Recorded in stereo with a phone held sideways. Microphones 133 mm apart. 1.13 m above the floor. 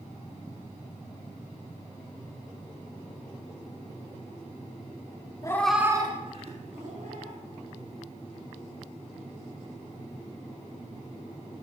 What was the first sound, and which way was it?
A cat meowing, 25° left (ahead or behind).